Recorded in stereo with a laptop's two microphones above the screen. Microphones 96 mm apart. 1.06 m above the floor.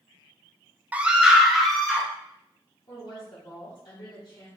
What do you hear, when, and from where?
0.9 s a scream: 15° right (ahead or behind), 0.6 m; by 2.1 s 5° left (ahead or behind), 1.4 m
2.9 s a woman speaking: 45° left (ahead or behind), 1.3 m